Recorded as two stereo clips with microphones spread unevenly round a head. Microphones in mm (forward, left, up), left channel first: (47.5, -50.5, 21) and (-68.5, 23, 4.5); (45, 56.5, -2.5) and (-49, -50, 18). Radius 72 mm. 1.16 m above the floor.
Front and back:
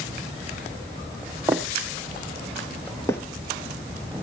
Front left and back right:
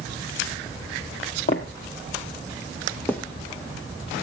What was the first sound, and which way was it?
Footsteps, 70° left.